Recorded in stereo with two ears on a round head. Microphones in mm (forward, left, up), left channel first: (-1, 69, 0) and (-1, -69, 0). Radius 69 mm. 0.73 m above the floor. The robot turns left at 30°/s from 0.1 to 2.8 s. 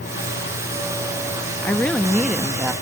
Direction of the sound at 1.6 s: 20° left.